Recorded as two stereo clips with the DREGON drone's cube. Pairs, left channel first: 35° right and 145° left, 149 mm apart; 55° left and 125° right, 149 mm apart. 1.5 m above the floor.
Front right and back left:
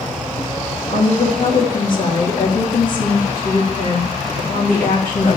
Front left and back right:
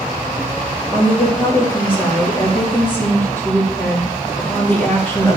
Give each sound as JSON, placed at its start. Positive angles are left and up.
{"t": 0.9, "sound": "a woman speaking", "azimuth_deg": -20, "distance_m": 3.5}